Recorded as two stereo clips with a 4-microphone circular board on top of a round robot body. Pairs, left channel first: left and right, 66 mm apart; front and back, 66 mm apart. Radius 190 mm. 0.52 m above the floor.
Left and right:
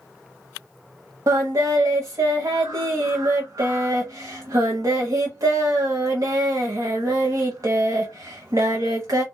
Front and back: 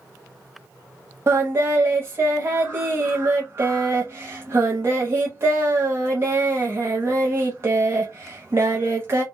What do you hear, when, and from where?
1.3 s singing: 130° right, 0.6 m